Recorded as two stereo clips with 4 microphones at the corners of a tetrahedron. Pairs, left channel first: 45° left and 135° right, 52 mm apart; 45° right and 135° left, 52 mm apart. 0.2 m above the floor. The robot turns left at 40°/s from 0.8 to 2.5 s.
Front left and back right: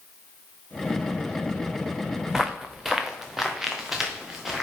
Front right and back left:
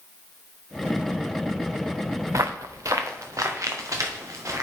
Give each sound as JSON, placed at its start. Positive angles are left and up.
{"t": 2.3, "sound": "footsteps", "azimuth_deg": 145, "distance_m": 0.9}